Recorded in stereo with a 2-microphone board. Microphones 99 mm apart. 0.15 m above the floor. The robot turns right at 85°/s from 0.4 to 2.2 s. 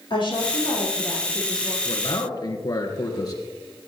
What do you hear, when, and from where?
0.1 s a woman speaking: 120° left, 5.5 m; by 1.8 s 125° right, 5.5 m
1.9 s a man speaking: 60° left (ahead or behind), 2 m; by 3.4 s 40° left (ahead or behind), 2 m